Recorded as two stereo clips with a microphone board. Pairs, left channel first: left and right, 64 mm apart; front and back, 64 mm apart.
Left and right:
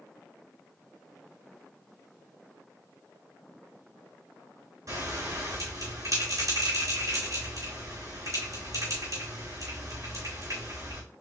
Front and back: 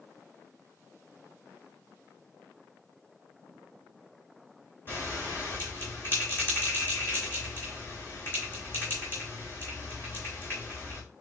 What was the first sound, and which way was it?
A bell, 60° right.